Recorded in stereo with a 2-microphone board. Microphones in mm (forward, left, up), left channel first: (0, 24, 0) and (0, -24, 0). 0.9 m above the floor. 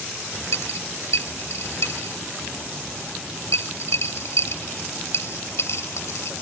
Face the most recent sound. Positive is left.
turn(degrees=60)  # may be behind; listen again after turning